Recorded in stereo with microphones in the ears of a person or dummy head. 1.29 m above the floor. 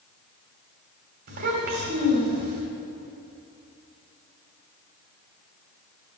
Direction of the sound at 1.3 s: 50° right (ahead or behind).